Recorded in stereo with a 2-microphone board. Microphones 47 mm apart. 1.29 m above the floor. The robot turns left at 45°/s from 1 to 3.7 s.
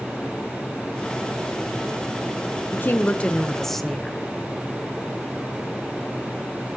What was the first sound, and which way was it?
A woman speaking, 50° left.